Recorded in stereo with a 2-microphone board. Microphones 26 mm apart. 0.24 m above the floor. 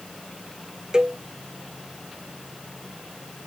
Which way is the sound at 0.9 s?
25° right (ahead or behind).